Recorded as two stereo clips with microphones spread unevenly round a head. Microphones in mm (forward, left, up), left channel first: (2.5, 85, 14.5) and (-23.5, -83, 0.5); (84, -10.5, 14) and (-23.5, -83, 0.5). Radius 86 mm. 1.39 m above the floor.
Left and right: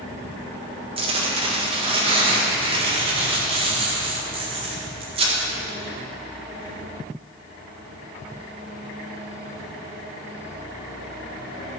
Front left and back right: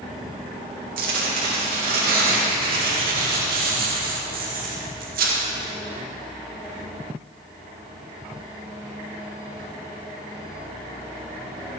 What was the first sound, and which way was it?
Tearing paper, 155° right.